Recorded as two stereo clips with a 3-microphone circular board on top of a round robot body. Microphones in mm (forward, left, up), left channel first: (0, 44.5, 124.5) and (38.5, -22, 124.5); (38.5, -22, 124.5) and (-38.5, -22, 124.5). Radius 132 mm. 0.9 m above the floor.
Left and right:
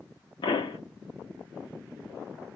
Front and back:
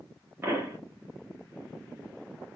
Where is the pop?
115° left, 1.2 m.